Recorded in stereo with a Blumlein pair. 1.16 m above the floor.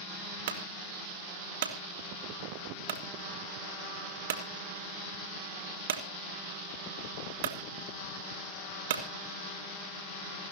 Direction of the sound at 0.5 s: 55° right.